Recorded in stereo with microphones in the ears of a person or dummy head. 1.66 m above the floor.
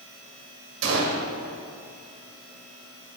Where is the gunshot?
55° right (ahead or behind), 1.6 m.